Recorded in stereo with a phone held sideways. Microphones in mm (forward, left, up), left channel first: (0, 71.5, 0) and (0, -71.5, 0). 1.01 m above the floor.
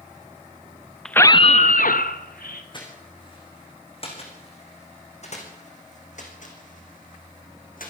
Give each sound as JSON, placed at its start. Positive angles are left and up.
{"t": 1.1, "sound": "a scream", "side_deg": 5, "distance_m": 0.7}
{"t": 2.7, "sound": "footsteps", "side_deg": 35, "distance_m": 5.0}